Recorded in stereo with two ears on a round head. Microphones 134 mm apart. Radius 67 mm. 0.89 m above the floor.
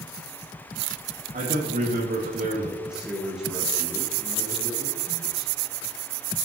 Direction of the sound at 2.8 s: 5° right (ahead or behind).